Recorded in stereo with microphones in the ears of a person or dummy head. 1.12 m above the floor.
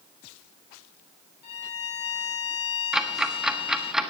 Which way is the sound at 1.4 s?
35° left (ahead or behind).